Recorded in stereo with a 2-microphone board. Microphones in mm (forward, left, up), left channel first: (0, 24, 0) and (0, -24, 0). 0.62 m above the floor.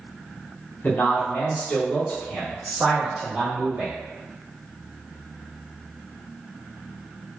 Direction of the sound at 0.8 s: 40° left (ahead or behind).